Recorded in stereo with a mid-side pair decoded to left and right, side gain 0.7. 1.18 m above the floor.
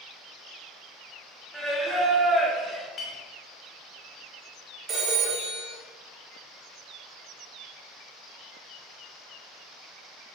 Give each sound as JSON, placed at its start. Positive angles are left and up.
{"t": 1.5, "sound": "singing", "azimuth_deg": 0, "distance_m": 0.5}
{"t": 3.0, "sound": "a clink", "azimuth_deg": 35, "distance_m": 0.7}
{"t": 4.9, "sound": "a phone ringing", "azimuth_deg": -25, "distance_m": 1.0}